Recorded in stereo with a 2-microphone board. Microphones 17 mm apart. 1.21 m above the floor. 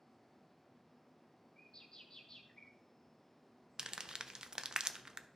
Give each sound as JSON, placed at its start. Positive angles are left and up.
{"t": 1.6, "sound": "a bird", "side_deg": 40, "distance_m": 1.2}
{"t": 3.8, "sound": "crumpling", "side_deg": -45, "distance_m": 0.5}